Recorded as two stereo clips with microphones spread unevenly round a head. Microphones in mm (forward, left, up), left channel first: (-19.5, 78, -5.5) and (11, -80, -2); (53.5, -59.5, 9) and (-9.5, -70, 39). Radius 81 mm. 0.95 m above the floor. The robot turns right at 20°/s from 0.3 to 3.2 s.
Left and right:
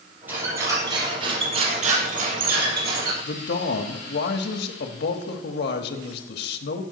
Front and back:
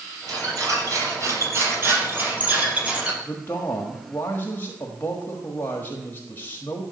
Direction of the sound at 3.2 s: 75° left.